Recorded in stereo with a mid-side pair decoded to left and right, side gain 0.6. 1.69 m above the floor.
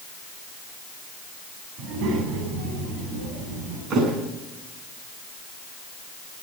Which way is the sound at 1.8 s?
65° right.